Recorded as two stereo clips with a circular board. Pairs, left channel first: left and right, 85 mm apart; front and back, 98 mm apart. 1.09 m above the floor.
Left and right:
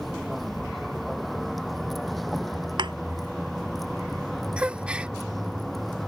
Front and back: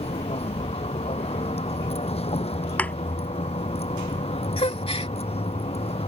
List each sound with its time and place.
0.0 s a vehicle: straight ahead
2.8 s a thud: 75° right
4.6 s a gasp: 15° right